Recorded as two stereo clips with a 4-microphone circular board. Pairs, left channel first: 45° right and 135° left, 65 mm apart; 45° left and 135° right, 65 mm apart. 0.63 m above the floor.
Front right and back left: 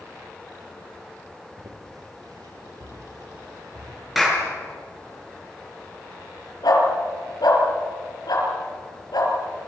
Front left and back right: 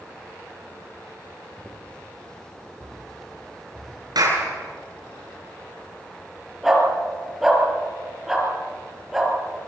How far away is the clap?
About 7 m.